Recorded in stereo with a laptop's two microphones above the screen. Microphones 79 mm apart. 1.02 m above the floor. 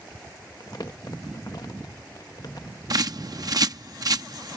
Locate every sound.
0.6 s crumpling: 55° left (ahead or behind)
2.9 s a bird: 50° right (ahead or behind)